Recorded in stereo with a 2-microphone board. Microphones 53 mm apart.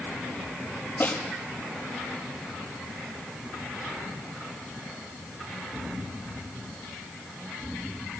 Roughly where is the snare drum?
Left.